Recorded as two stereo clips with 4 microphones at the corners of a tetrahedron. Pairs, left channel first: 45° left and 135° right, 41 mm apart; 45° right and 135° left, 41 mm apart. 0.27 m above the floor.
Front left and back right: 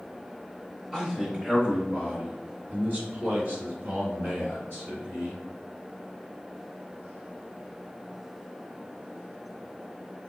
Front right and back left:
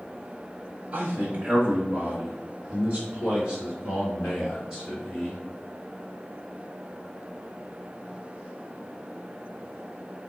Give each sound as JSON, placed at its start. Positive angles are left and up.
{"t": 0.9, "sound": "a man speaking", "azimuth_deg": 140, "distance_m": 1.1}